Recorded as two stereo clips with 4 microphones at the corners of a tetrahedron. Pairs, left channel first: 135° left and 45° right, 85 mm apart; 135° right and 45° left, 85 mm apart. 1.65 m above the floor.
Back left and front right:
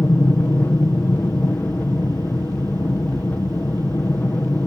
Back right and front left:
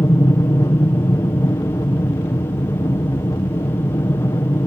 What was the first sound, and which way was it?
An aircraft, 165° right.